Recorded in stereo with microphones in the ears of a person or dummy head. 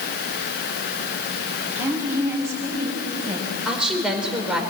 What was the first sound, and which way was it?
A woman speaking, 10° right (ahead or behind).